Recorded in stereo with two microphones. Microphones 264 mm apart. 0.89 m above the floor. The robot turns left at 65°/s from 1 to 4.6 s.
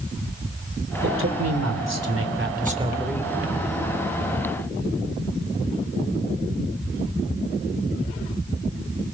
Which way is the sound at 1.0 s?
45° right.